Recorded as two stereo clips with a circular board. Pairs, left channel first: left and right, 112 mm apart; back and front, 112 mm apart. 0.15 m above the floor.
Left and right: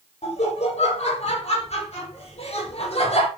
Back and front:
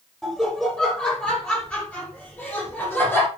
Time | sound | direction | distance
0.2 | laughter | 95° left | 6 m